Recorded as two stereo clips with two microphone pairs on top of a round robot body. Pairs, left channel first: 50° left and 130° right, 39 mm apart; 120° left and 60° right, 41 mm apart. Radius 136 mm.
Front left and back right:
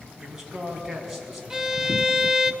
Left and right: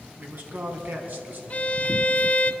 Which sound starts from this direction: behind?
A violin, at 1.5 s.